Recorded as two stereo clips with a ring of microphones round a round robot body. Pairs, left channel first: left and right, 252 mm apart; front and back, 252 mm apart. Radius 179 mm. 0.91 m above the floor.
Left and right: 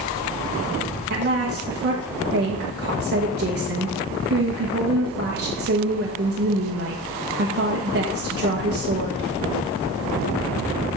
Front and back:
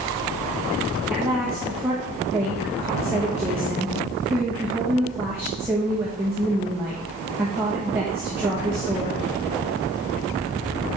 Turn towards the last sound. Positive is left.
turn(degrees=-100)